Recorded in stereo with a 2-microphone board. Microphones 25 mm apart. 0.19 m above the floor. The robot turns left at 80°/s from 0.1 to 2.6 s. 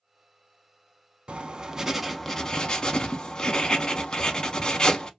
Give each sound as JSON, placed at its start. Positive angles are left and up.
{"t": 1.3, "sound": "writing", "azimuth_deg": -115, "distance_m": 0.6}